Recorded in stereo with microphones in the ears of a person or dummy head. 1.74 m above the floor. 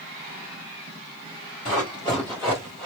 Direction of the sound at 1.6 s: 25° left (ahead or behind).